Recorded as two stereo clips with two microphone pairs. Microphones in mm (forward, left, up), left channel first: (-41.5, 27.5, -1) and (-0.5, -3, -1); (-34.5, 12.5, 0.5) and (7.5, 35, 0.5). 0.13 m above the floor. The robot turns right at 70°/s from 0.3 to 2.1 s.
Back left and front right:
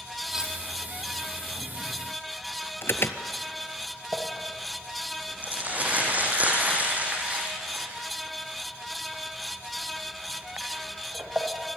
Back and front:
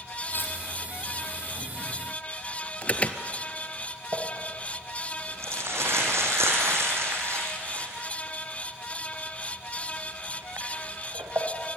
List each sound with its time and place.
0.3 s cutlery clinking: 120° right, 2.5 m; by 0.6 s 100° right, 2.5 m
2.8 s an alarm: 155° left, 1.3 m
4.1 s crumpling: 20° left, 4 m